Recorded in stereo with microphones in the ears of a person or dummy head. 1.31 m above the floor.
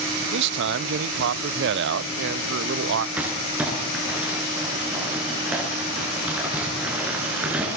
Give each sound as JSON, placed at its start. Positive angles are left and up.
{"t": 0.3, "sound": "a man speaking", "side_deg": -65, "distance_m": 0.6}
{"t": 3.2, "sound": "crumpling", "side_deg": -5, "distance_m": 9.0}